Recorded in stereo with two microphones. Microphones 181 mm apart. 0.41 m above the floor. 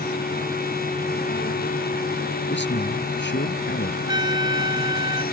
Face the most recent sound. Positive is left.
turn(degrees=-25)  # may be behind; listen again after turning